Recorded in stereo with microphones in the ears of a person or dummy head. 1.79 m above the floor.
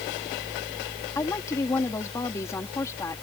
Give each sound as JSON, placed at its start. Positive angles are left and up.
{"t": 1.1, "sound": "a woman speaking", "side_deg": 20}